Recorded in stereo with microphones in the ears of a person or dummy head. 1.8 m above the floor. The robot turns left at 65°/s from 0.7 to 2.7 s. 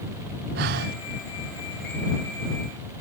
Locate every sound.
0.6 s breathing: 50° right (ahead or behind); by 1.0 s 45° right (ahead or behind)